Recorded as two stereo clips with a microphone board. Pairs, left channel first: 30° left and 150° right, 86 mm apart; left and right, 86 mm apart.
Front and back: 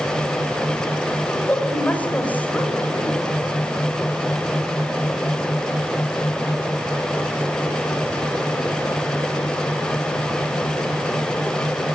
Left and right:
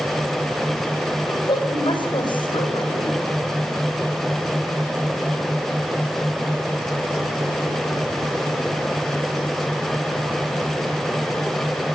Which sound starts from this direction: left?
A woman speaking, at 1.3 s.